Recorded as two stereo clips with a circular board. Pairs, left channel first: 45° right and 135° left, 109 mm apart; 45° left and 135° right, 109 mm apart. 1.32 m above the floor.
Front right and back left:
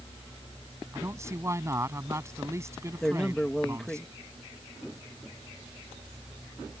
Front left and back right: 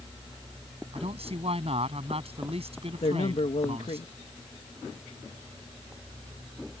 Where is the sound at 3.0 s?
40° left.